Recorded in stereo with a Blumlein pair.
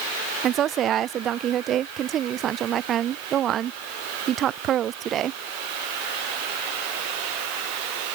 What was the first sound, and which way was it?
A woman speaking, 30° right.